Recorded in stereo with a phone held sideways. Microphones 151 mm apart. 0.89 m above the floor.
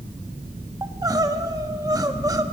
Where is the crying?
25° right (ahead or behind), 1.1 m.